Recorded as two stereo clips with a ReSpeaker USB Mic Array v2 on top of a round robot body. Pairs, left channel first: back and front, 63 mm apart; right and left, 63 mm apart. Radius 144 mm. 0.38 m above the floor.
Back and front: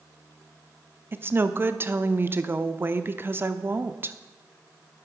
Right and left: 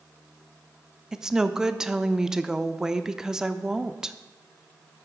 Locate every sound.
1.1 s a woman speaking: 15° left, 1.0 m